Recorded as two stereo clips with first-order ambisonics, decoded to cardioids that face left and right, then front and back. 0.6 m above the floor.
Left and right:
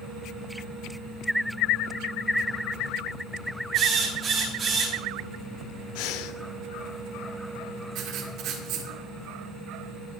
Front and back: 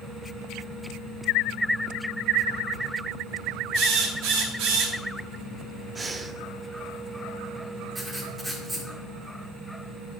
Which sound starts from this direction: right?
Writing, at 8.0 s.